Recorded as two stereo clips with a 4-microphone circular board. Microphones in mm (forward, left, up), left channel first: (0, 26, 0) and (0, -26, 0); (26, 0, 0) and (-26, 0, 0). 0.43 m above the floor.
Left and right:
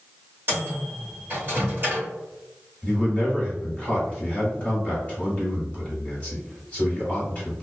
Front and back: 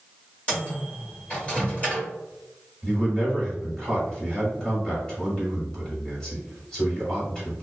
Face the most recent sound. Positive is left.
turn(degrees=50)